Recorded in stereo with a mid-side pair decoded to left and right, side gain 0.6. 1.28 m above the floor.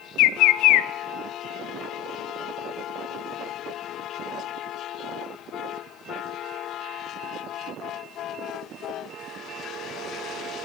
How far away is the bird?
About 0.6 m.